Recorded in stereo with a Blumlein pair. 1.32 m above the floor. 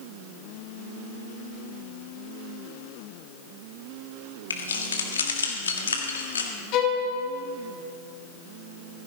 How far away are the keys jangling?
About 1.7 m.